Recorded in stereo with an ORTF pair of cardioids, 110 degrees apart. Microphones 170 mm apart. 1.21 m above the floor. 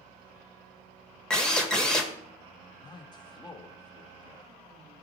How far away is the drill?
About 1.5 m.